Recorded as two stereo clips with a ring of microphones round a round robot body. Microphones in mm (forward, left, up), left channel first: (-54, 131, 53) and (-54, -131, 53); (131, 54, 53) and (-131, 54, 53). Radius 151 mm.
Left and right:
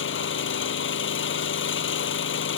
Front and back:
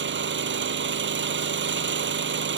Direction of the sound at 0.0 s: 135° left.